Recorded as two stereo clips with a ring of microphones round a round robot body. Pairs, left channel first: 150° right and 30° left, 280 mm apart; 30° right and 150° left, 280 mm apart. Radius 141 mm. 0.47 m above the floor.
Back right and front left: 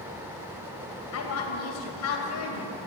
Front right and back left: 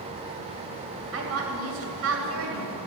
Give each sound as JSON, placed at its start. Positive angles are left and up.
{"t": 1.1, "sound": "a woman speaking", "azimuth_deg": 180, "distance_m": 3.0}